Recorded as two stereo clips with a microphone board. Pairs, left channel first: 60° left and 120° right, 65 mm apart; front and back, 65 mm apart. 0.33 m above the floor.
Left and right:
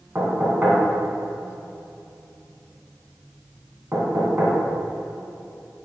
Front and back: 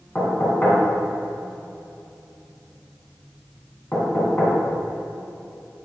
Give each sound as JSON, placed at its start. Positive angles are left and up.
{"t": 0.1, "sound": "knocking", "azimuth_deg": -60, "distance_m": 2.5}